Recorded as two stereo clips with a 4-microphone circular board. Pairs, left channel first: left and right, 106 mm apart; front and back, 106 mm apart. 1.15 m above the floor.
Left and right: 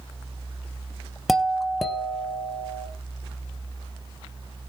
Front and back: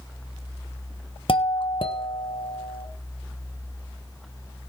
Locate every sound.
1.3 s a doorbell: straight ahead, 1.4 m